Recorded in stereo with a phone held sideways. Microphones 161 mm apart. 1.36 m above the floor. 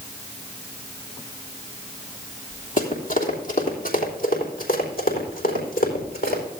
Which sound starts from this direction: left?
Running footsteps, at 2.8 s.